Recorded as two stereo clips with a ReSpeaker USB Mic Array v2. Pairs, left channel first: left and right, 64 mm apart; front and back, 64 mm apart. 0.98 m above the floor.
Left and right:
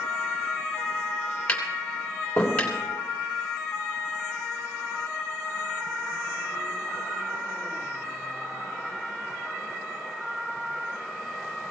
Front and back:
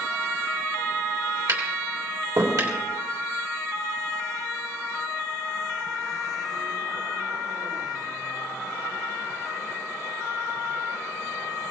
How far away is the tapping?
About 3 m.